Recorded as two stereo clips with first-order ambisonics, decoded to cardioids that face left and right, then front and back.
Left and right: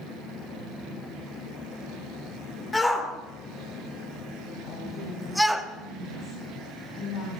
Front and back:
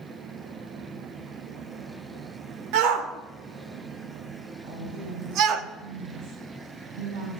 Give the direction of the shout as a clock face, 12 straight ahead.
6 o'clock.